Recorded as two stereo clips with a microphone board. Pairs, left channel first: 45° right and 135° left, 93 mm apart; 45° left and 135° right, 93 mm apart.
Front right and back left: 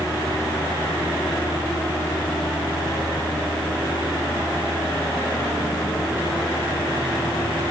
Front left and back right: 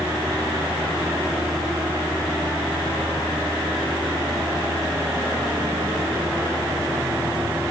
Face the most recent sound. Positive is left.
No sound to turn to.